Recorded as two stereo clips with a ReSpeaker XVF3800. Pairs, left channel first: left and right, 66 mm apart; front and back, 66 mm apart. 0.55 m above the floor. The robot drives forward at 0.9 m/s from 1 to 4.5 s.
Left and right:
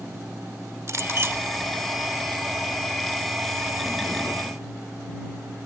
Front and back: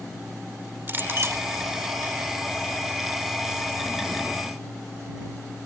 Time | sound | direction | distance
0.9 | a clink | 125° right | ?